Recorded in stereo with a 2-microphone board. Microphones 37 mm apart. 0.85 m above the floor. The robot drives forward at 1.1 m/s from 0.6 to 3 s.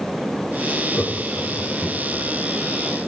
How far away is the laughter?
About 7.5 m.